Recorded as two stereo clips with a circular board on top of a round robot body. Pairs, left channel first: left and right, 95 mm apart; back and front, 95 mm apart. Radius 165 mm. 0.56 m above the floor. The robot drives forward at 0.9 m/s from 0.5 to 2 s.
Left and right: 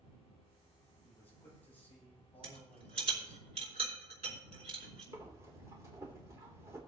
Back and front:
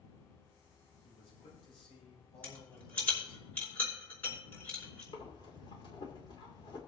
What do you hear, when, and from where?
1.0 s a man speaking: 160° left, 5.5 m
2.4 s a rattle: 110° right, 4 m
5.1 s breathing: 150° right, 2.5 m